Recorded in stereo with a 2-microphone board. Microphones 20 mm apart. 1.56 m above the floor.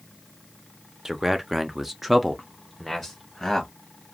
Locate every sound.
1.1 s a man speaking: 20° right (ahead or behind), 0.6 m; by 3.7 s 5° left (ahead or behind), 1.1 m